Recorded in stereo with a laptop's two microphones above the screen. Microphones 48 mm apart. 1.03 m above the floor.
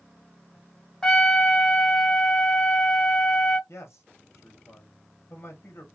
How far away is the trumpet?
About 0.8 m.